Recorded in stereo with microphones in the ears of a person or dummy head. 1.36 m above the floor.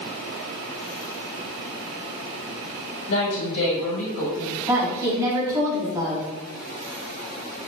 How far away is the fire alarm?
I don't hear a fire alarm.